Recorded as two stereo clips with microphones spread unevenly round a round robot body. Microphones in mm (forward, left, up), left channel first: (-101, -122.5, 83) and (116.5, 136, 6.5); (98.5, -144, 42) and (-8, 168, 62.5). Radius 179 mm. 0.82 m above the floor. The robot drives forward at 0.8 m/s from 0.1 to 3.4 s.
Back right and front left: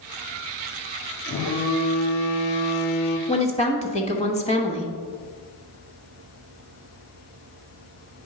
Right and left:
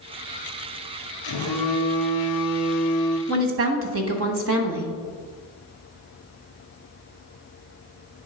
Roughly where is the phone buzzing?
Ahead right.